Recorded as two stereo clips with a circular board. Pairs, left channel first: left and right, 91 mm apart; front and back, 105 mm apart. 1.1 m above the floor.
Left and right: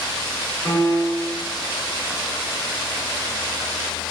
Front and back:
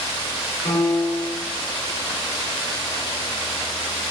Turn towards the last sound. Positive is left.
turn(degrees=20)